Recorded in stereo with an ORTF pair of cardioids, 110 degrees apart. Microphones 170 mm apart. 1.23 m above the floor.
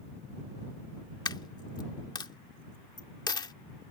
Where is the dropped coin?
25° left.